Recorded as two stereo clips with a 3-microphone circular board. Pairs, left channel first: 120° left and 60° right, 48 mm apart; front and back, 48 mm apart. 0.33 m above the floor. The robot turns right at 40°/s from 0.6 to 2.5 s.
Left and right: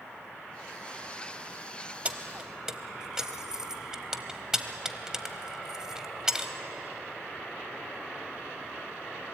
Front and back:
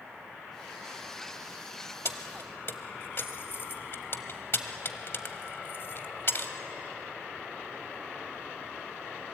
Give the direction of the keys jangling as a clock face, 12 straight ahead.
12 o'clock.